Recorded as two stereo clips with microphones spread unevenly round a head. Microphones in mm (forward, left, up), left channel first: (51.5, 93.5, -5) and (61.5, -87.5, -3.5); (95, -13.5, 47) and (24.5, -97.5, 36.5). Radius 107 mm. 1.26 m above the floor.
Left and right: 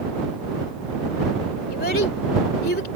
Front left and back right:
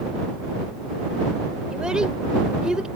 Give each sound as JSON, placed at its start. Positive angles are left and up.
{"t": 1.7, "sound": "a child speaking", "azimuth_deg": 140}